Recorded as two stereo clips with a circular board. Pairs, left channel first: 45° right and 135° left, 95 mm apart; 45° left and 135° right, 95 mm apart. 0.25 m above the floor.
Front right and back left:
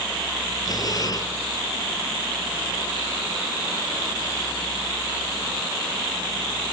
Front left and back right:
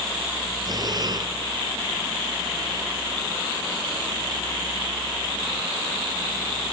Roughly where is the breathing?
Right.